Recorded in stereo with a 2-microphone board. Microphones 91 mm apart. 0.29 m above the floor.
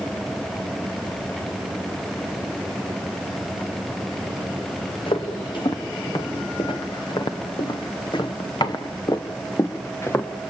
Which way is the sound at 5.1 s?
70° left (ahead or behind).